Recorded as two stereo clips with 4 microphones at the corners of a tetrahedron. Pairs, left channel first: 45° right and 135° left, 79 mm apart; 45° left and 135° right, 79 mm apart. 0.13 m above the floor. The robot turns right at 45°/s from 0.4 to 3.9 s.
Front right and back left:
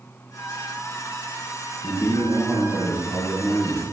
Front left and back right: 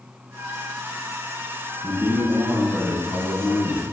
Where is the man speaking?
100° right, 1.3 m; by 3.8 s 10° right, 1.3 m.